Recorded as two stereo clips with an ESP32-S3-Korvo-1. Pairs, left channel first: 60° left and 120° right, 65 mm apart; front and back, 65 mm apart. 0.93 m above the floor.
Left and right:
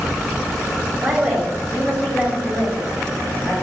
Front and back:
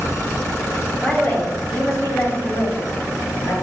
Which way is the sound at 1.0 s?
60° right.